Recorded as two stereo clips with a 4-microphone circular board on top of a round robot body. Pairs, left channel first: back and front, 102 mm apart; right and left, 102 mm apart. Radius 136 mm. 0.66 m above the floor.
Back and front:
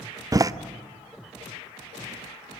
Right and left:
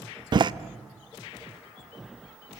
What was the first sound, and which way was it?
A door slam, 50° left.